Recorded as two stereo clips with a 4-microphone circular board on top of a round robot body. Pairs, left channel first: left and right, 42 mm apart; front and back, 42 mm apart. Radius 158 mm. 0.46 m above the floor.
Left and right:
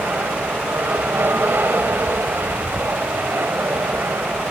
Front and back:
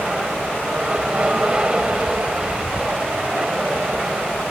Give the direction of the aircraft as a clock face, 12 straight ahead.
4 o'clock.